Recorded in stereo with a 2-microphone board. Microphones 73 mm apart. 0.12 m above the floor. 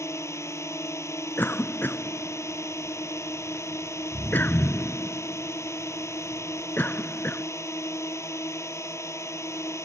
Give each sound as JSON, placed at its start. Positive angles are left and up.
{"t": 0.0, "sound": "a drone", "side_deg": 40}
{"t": 1.4, "sound": "a cough", "side_deg": 25}